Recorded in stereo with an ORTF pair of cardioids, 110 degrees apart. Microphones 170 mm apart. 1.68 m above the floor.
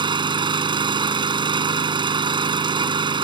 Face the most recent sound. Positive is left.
turn(degrees=-30)